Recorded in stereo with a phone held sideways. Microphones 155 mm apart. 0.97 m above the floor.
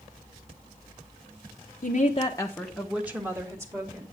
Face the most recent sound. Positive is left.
turn(degrees=-25)  # may be behind; listen again after turning